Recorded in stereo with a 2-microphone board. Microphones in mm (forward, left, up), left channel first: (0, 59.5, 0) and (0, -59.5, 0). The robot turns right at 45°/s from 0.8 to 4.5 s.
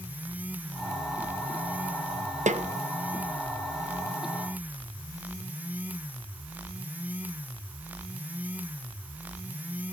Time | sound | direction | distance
2.5 | a snare drum | 75° right (ahead or behind) | 0.7 m